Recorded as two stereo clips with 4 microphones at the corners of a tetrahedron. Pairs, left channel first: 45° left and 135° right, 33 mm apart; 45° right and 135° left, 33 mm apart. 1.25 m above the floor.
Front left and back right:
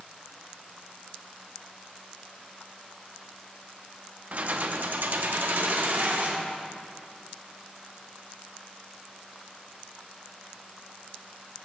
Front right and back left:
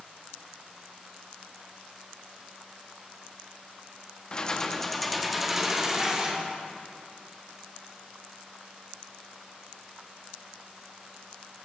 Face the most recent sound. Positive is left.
turn(degrees=-155)